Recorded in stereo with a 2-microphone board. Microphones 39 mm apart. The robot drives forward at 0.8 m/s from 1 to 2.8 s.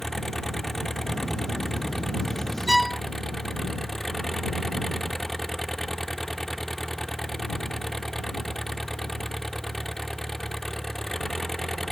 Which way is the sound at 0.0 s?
5° left (ahead or behind).